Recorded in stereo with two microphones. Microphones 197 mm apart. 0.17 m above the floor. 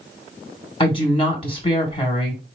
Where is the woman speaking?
25° left (ahead or behind), 1.4 m.